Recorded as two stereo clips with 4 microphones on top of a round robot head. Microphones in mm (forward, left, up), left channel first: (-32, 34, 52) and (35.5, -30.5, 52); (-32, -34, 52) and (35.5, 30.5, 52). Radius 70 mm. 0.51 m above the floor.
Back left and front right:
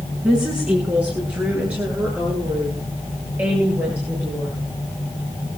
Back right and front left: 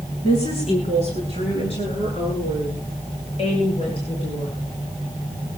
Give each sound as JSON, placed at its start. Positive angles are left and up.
{"t": 0.2, "sound": "a woman speaking", "azimuth_deg": -125, "distance_m": 7.5}